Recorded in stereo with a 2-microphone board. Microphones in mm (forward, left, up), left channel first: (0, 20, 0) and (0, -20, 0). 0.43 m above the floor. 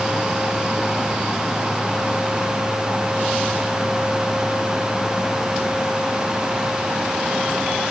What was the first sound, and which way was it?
Only background noise.